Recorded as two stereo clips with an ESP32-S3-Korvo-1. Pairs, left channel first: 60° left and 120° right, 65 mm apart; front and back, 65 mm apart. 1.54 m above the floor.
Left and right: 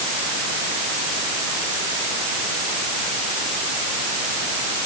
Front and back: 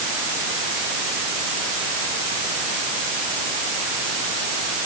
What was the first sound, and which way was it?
Only background noise.